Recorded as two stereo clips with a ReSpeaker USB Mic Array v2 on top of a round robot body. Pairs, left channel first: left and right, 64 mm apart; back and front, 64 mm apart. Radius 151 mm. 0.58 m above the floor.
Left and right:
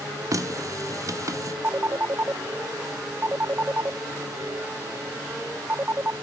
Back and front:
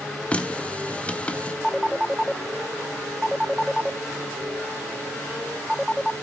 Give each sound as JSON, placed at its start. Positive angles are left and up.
{"t": 0.3, "sound": "a running tap", "azimuth_deg": -110, "distance_m": 1.0}
{"t": 1.6, "sound": "a phone ringing", "azimuth_deg": -90, "distance_m": 0.6}